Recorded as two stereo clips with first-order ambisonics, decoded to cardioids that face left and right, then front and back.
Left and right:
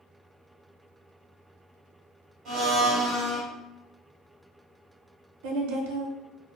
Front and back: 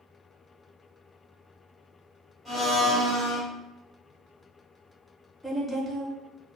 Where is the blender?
85° right, 1.1 m.